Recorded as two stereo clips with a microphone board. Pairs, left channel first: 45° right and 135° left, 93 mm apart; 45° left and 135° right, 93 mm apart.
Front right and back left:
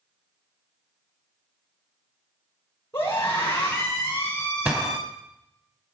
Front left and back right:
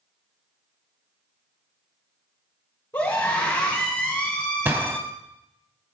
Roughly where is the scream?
Ahead.